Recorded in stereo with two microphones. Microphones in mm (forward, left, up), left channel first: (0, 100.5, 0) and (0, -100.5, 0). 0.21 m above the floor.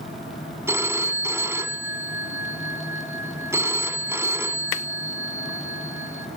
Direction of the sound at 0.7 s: 15° right (ahead or behind).